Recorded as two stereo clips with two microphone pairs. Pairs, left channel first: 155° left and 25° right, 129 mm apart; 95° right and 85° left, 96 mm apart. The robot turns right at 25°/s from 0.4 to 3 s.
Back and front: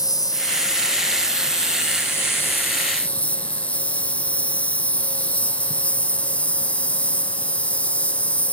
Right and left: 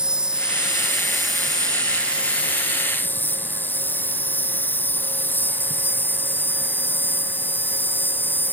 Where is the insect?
155° left; by 8.5 s 140° right.